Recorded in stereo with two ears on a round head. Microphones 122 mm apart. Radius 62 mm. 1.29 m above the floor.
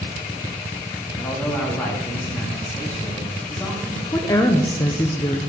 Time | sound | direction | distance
1.2 | a man speaking | 10° left (ahead or behind) | 2 m
4.1 | a woman speaking | 20° left (ahead or behind) | 0.7 m